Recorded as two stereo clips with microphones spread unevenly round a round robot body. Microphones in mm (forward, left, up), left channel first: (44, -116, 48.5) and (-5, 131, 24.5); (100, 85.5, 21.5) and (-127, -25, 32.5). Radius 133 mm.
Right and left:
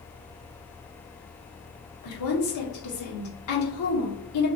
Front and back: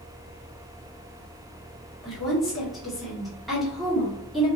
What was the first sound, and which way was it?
A woman speaking, 65° right.